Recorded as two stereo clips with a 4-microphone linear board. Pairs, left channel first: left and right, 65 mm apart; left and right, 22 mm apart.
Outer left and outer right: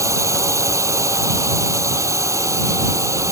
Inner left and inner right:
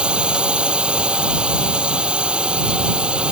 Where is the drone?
50° right (ahead or behind).